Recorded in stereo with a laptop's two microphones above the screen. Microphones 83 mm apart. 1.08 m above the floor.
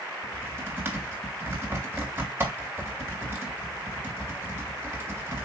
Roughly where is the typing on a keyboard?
Right.